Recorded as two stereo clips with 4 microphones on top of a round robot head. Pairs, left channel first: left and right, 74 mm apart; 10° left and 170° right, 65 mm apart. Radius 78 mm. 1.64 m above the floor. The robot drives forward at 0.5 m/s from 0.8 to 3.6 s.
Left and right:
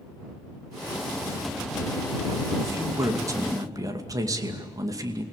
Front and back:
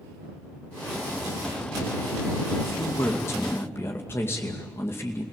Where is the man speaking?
40° right, 3 m; by 5.2 s 50° right, 2.5 m.